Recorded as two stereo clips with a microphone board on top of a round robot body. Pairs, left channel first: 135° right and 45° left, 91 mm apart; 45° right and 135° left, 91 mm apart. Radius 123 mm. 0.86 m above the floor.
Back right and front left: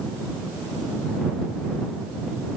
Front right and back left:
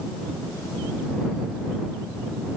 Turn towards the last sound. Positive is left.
No sound to turn to.